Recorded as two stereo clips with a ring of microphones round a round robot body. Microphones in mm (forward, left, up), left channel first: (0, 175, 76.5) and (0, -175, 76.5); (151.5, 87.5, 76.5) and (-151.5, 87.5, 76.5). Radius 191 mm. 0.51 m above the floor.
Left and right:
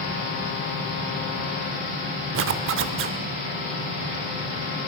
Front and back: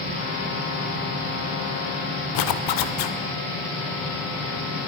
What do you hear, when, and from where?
2.4 s a zipper: 30° right, 0.5 m